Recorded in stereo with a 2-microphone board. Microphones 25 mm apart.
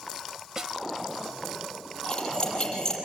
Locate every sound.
0.6 s a snare drum: 30° right (ahead or behind), 1.1 m
2.0 s cutlery clinking: 35° left (ahead or behind), 6 m